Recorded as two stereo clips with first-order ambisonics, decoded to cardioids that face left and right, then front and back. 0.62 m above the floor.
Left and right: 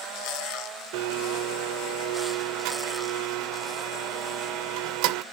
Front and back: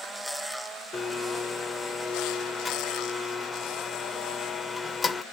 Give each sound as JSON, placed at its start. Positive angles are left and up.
{"t": 0.9, "sound": "a blender", "azimuth_deg": -75, "distance_m": 0.5}